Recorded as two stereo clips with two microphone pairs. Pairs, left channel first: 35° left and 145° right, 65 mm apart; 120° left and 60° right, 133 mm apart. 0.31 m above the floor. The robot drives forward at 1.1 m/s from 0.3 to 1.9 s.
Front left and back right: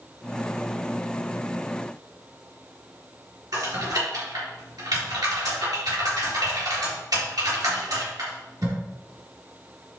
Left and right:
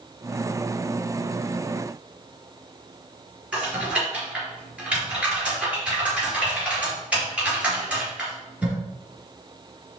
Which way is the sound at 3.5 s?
140° right.